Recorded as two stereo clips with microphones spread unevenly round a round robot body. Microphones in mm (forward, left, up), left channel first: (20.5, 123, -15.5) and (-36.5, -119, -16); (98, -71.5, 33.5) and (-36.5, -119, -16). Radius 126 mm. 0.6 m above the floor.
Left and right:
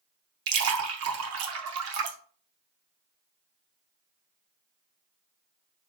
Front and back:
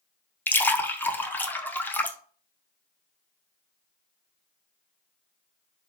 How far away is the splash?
About 0.7 m.